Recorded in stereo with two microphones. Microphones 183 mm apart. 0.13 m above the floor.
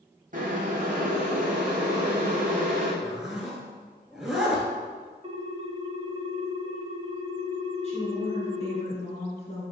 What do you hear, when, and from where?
0.3 s boiling: 45° right (ahead or behind), 1.5 m
3.0 s a zipper: centre (ahead or behind), 1.1 m
5.2 s a ringtone: 35° right (ahead or behind), 0.6 m
7.8 s a woman speaking: 40° left (ahead or behind), 1.6 m